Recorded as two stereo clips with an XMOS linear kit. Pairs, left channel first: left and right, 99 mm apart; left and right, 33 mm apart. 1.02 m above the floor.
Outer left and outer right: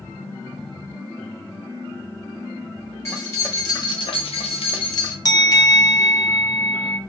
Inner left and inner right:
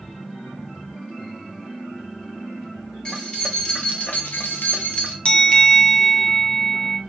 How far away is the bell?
About 0.6 m.